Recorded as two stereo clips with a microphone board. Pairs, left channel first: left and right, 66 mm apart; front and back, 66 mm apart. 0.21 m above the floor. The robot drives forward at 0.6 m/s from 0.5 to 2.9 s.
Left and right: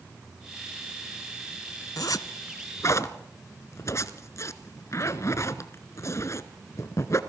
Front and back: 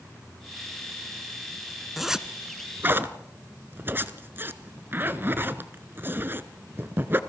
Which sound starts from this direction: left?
A zipper, at 2.0 s.